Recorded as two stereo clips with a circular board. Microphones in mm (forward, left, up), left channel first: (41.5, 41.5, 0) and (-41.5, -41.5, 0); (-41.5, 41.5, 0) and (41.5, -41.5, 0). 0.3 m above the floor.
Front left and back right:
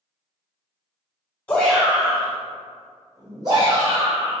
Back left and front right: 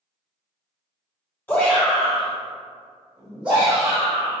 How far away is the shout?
About 1.2 m.